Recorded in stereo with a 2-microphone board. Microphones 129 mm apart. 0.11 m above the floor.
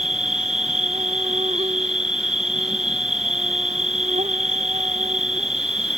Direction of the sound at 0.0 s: 60° right (ahead or behind).